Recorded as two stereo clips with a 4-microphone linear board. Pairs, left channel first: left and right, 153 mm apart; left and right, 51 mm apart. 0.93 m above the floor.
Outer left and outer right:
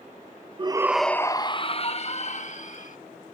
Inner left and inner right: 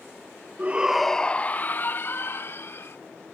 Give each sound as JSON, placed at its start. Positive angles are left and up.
{"t": 0.6, "sound": "a shout", "side_deg": -35}